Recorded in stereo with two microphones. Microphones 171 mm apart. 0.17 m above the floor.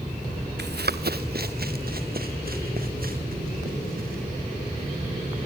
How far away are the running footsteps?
About 1.1 m.